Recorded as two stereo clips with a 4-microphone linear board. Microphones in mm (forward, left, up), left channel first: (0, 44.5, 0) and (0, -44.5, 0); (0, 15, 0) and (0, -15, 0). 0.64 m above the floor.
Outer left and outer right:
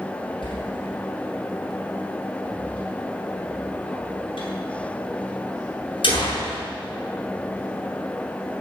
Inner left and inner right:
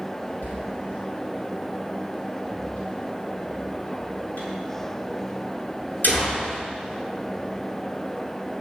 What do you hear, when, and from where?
0.4 s a door slam: 80° left, 7 m